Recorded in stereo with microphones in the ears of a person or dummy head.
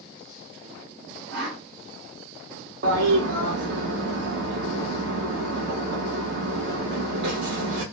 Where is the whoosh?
70° right (ahead or behind), 1.2 m.